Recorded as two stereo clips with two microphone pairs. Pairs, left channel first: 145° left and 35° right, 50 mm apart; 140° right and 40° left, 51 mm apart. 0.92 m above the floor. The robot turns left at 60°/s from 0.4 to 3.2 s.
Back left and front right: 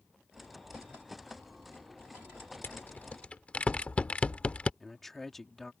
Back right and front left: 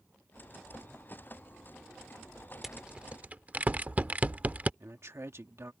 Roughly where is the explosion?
No explosion in this recording.